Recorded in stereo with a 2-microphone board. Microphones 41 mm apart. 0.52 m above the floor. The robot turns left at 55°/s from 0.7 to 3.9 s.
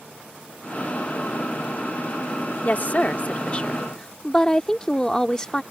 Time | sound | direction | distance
2.6 | a woman speaking | 95° left | ?